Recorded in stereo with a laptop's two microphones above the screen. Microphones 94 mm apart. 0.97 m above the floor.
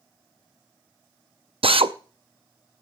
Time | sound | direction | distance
1.6 | a drill | 75° right (ahead or behind) | 0.6 m